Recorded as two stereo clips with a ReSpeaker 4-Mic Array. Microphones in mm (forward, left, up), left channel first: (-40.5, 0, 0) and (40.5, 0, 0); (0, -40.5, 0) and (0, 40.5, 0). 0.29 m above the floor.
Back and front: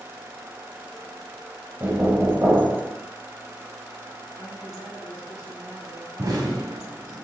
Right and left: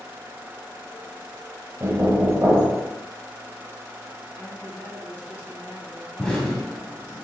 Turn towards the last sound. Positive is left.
turn(degrees=-10)